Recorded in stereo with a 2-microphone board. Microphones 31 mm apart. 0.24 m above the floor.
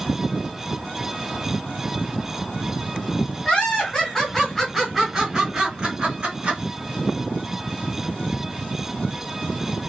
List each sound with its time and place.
3.5 s laughter: 35° left (ahead or behind), 1.5 m; by 6.6 s 35° right (ahead or behind), 1.5 m